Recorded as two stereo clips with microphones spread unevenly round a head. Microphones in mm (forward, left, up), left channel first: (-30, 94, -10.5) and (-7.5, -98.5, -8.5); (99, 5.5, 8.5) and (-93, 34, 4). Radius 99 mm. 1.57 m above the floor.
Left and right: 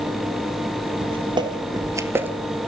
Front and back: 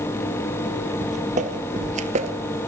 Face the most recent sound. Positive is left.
turn(degrees=-160)